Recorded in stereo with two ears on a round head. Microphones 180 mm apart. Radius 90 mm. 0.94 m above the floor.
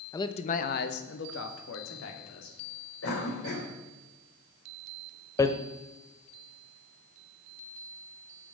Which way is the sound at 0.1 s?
15° left (ahead or behind).